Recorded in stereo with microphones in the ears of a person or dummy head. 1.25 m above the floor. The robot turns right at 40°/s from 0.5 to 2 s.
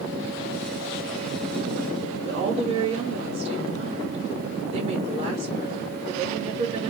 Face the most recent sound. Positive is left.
turn(degrees=-30)  # may be behind; listen again after turning